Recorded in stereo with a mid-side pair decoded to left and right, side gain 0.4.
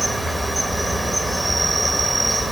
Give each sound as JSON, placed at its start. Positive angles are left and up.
{"t": 0.0, "sound": "an insect", "azimuth_deg": -15, "distance_m": 1.5}